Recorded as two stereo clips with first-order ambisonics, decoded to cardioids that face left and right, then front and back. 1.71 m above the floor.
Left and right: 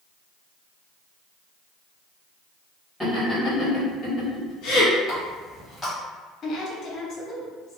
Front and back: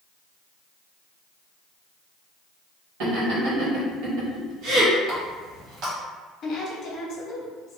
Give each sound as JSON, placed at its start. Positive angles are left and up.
{"t": 3.0, "sound": "laughter", "azimuth_deg": 175, "distance_m": 1.6}
{"t": 5.1, "sound": "a running tap", "azimuth_deg": 160, "distance_m": 1.3}
{"t": 6.4, "sound": "a woman speaking", "azimuth_deg": 45, "distance_m": 0.8}